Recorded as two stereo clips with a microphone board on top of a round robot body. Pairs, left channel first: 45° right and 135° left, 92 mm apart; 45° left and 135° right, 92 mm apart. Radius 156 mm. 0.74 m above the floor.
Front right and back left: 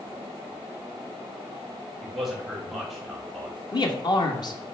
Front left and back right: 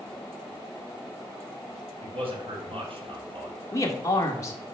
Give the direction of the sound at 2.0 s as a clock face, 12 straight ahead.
5 o'clock.